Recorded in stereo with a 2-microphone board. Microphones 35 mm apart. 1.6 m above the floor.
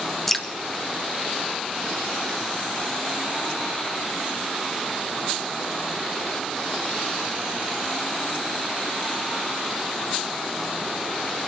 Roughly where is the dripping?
Centre.